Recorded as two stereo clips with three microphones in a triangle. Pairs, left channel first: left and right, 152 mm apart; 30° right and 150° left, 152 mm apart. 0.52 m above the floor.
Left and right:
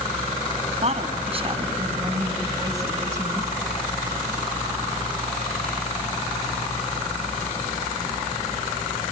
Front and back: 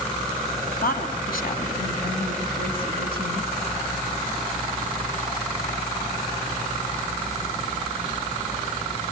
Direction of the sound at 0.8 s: 50° right.